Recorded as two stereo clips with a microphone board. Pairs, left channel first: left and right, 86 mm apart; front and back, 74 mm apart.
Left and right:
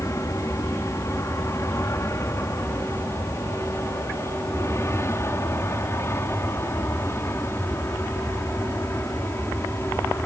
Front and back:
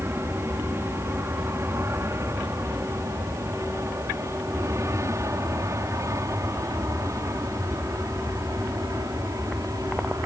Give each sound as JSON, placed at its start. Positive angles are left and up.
{"t": 0.0, "sound": "an aircraft", "azimuth_deg": 135}